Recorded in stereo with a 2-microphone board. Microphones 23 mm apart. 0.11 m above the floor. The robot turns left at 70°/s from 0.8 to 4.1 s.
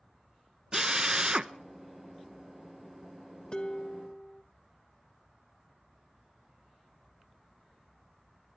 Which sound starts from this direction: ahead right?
A drill, at 0.7 s.